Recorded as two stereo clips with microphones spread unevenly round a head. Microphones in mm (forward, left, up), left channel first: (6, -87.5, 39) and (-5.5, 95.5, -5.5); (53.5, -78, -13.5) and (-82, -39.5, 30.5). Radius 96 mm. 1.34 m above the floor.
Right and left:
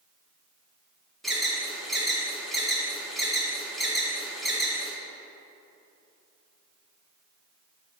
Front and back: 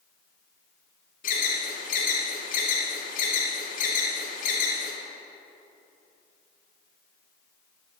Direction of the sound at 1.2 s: 5° left.